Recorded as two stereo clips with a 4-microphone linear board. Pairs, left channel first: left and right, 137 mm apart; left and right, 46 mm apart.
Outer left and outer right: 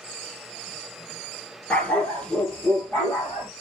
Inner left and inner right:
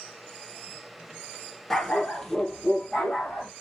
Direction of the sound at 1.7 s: 10° left (ahead or behind).